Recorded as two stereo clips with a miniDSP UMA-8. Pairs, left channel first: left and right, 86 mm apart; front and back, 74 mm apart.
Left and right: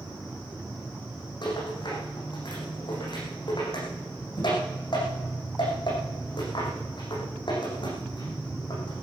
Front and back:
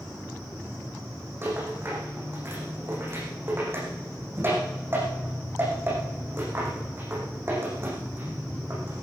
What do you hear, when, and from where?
1.4 s a rattle: 120° left, 7 m